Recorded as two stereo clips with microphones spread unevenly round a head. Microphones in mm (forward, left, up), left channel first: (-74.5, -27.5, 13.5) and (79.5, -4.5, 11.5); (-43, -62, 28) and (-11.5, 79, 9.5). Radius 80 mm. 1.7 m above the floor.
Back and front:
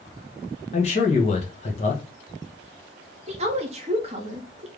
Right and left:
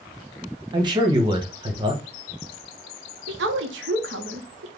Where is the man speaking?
140° left, 1.2 m.